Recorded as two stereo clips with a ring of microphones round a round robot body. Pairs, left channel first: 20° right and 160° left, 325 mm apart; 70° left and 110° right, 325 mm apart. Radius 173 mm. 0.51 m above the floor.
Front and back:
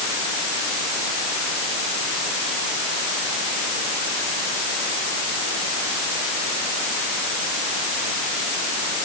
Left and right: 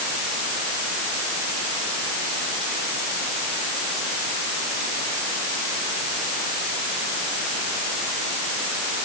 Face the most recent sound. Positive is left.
No sound to turn to.